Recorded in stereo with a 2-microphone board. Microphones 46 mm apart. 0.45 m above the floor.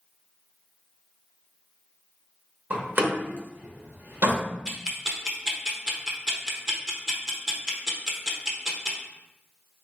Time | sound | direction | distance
2.7 | a door slam | 45° right (ahead or behind) | 1.2 m
4.7 | ticking | 15° right (ahead or behind) | 0.8 m